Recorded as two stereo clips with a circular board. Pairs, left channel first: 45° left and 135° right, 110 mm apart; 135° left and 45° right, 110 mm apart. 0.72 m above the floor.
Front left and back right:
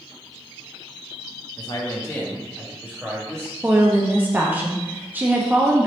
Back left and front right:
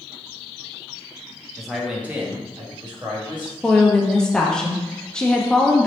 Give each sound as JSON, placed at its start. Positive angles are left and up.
{"t": 1.6, "sound": "a man speaking", "azimuth_deg": 50, "distance_m": 0.8}
{"t": 3.6, "sound": "a woman speaking", "azimuth_deg": -160, "distance_m": 0.5}